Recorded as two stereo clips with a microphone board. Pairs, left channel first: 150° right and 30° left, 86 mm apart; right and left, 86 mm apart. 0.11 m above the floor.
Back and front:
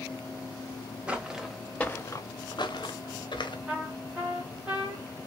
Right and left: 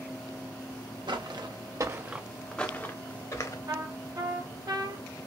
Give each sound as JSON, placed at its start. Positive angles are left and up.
{"t": 1.1, "sound": "footsteps", "azimuth_deg": 105, "distance_m": 0.9}
{"t": 3.7, "sound": "a trumpet", "azimuth_deg": 110, "distance_m": 0.8}